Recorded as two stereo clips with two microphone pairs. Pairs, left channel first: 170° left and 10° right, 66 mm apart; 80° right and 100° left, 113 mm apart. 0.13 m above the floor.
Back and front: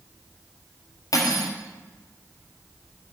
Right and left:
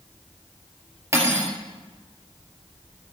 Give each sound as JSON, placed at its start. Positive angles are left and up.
{"t": 1.1, "sound": "cutlery clinking", "azimuth_deg": 160, "distance_m": 1.8}